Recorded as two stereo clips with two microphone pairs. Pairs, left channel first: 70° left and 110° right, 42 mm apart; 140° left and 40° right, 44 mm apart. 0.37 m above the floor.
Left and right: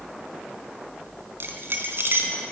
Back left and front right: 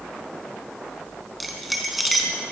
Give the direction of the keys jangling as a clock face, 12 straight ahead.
4 o'clock.